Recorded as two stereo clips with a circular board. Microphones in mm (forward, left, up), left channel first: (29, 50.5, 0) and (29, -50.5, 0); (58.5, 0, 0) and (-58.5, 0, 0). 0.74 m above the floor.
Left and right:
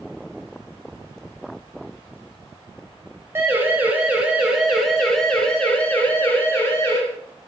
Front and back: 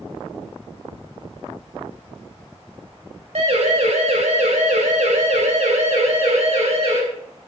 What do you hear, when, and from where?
3.4 s a siren: 155° right, 4.5 m; by 7.0 s 155° left, 5 m